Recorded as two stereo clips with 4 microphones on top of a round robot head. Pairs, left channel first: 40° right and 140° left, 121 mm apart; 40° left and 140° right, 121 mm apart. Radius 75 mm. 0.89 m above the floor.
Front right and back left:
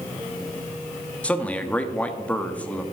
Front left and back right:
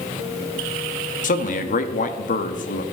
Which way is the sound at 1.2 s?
40° left.